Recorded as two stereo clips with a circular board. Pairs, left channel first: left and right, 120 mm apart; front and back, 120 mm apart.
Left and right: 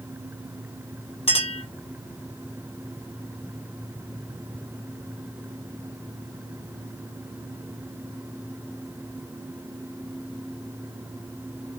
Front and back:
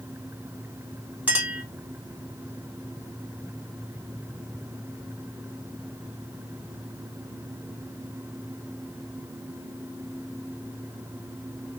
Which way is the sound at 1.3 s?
105° left.